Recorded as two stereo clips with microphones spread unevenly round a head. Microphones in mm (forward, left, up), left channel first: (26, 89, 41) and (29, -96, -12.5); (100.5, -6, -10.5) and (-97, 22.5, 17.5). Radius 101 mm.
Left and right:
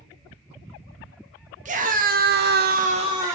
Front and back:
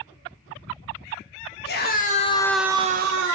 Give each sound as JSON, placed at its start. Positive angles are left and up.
{"t": 1.6, "sound": "a scream", "azimuth_deg": -45, "distance_m": 1.8}